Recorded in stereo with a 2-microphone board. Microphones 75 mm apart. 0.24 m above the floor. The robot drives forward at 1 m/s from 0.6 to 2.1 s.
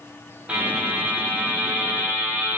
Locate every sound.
0.5 s a buzzer: 20° right (ahead or behind), 7 m; by 2.6 s 25° right (ahead or behind), 5.5 m